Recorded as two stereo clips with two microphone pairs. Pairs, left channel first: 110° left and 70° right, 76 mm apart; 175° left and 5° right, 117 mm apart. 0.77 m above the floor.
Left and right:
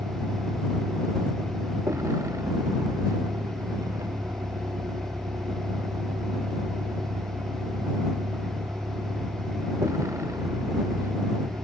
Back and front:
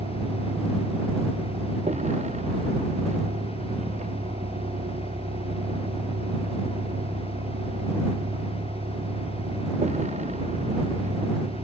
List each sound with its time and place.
0.0 s a vehicle: 20° right